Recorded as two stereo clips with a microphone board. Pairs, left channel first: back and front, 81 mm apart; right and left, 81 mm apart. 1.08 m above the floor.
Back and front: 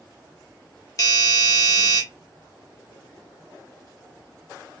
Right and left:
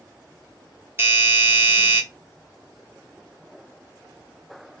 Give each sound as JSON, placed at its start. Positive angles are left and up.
{"t": 1.0, "sound": "a doorbell", "azimuth_deg": 145, "distance_m": 1.4}